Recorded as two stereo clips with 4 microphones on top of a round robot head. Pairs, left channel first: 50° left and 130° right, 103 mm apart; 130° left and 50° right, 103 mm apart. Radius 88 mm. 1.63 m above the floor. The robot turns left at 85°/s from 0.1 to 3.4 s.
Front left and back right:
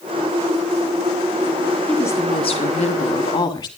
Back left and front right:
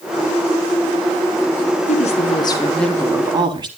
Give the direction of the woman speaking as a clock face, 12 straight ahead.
8 o'clock.